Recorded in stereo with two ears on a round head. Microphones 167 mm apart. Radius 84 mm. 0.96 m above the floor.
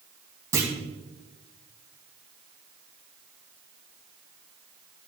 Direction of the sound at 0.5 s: 15° right (ahead or behind).